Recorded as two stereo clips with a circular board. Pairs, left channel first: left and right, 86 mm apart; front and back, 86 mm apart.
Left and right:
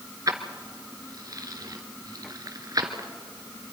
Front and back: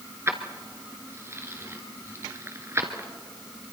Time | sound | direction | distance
0.3 | keys jangling | 125° right | 1.7 m